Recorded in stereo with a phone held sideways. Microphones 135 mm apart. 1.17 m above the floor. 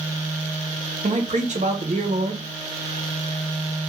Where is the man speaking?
60° right (ahead or behind), 0.6 m.